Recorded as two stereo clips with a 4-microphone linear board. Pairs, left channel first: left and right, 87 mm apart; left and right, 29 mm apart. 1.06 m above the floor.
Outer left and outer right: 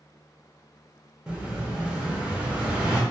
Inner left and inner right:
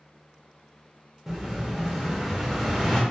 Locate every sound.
1.3 s an explosion: 10° right (ahead or behind), 0.7 m